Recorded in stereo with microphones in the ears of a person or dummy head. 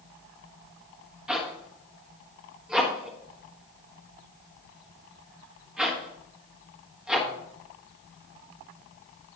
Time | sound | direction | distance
1.3 | a zipper | 5° right (ahead or behind) | 1.5 m